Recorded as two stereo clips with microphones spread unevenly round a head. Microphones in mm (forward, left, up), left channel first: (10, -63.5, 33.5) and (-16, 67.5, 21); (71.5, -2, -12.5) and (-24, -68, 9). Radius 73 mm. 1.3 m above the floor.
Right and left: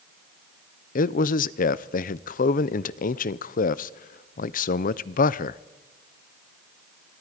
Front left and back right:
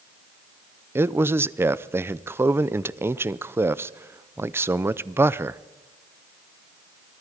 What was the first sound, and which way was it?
A man speaking, 70° right.